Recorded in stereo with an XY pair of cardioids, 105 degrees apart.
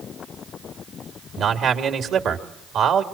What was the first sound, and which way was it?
A man speaking, 65° right.